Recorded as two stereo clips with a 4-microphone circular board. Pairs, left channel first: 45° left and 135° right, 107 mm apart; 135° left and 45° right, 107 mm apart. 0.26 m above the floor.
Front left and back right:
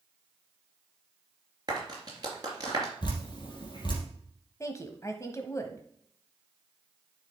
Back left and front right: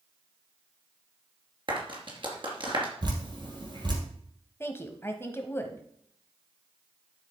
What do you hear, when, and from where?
1.7 s a clap: 85° right, 3 m
3.0 s dripping: straight ahead, 3 m
4.6 s a woman speaking: 85° left, 1.1 m